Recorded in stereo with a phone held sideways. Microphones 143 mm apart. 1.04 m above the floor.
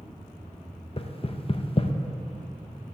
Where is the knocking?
40° left (ahead or behind), 0.6 m.